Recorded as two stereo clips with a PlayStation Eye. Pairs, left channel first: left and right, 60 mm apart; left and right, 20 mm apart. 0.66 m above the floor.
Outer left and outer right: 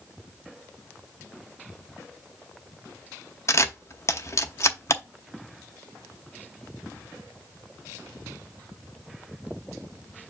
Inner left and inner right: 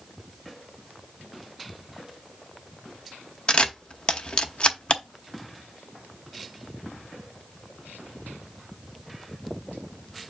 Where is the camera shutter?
55° left (ahead or behind), 0.8 m.